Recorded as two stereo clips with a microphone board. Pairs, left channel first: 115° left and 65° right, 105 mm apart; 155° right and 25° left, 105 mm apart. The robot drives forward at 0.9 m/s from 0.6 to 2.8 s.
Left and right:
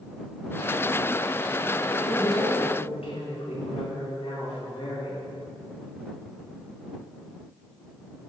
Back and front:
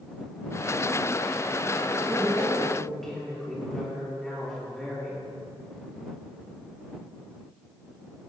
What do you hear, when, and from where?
1.9 s a woman speaking: 105° left, 4 m; by 5.2 s 115° left, 4.5 m